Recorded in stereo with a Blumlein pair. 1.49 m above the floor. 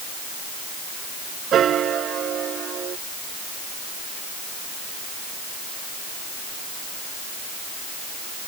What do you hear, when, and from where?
1.5 s a piano: 25° right